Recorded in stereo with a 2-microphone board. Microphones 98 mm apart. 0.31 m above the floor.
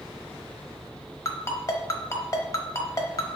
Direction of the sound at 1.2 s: 30° left (ahead or behind).